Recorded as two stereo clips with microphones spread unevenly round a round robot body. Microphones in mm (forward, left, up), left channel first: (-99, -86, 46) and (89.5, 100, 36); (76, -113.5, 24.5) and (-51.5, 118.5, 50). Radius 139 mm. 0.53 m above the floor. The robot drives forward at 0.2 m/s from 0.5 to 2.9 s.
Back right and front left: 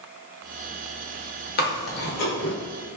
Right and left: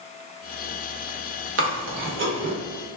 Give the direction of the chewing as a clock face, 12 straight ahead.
6 o'clock.